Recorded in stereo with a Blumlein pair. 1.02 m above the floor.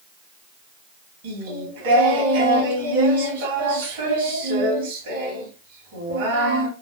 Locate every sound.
1.2 s singing: 60° right, 1.7 m